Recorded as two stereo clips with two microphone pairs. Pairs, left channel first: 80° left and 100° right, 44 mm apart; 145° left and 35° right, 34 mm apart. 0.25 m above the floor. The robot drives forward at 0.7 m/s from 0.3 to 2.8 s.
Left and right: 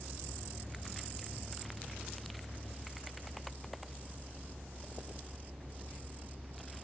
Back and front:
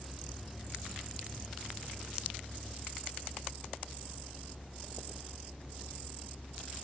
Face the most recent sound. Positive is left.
turn(degrees=-140)